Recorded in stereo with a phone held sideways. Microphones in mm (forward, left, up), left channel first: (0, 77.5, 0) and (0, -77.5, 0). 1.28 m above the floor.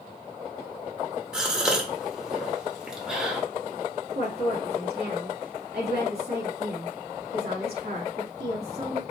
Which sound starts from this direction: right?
A woman speaking, at 4.2 s.